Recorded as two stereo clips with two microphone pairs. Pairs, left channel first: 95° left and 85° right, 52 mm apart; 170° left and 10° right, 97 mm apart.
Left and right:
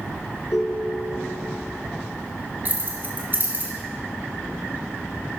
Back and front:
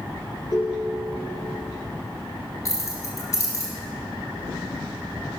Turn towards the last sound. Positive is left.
turn(degrees=-135)